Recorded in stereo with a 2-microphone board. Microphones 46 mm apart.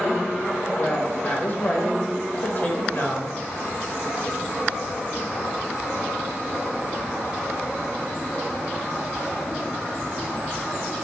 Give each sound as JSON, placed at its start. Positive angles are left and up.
{"t": 0.8, "sound": "a woman speaking", "side_deg": 35, "distance_m": 0.9}